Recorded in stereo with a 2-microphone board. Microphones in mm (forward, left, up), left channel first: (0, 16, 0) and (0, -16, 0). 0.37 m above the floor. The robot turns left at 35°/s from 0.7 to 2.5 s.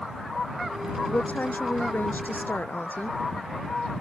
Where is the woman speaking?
135° left; by 3.2 s 80° left.